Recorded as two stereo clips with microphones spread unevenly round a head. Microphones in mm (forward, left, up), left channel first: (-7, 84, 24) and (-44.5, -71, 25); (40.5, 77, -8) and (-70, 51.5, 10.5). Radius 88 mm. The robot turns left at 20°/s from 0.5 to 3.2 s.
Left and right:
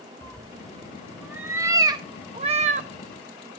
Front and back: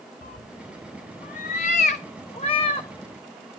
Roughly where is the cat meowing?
Ahead.